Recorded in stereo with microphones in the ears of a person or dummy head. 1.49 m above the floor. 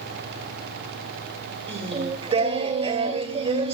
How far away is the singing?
About 2 m.